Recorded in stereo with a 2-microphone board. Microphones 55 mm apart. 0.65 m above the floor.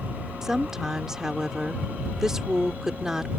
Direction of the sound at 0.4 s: 10° right (ahead or behind).